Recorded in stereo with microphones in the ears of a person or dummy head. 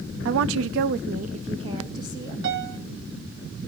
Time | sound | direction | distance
0.2 | a woman speaking | 65° right (ahead or behind) | 0.6 m
2.4 | a piano | 60° right (ahead or behind) | 2 m